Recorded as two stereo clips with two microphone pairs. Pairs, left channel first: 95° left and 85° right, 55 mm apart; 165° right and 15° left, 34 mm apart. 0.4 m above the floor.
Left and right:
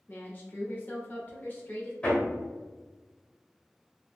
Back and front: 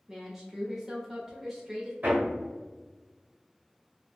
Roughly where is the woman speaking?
Left.